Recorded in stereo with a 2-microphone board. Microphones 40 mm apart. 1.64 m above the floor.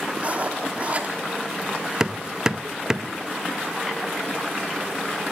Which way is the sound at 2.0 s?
15° right (ahead or behind).